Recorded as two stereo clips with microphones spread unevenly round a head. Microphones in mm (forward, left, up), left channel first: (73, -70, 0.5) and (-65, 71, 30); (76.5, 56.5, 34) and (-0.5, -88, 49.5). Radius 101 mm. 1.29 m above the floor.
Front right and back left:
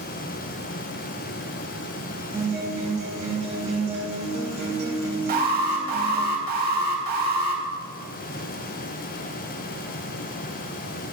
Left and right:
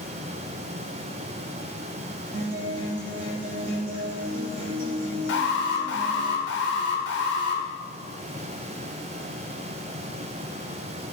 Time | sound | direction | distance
2.3 | a guitar | 165° right | 1.8 m
5.3 | an alarm | 90° left | 1.4 m